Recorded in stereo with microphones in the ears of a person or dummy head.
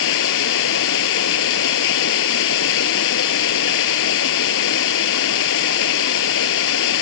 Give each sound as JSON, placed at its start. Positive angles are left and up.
{"t": 0.0, "sound": "running water", "side_deg": 70}